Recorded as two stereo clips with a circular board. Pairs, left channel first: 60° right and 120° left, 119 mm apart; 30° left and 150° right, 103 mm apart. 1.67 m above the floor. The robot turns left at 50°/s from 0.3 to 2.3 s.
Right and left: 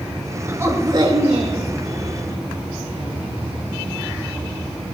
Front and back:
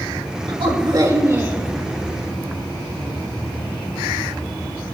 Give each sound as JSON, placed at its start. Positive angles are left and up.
{"t": 0.5, "sound": "a woman speaking", "azimuth_deg": -170, "distance_m": 2.5}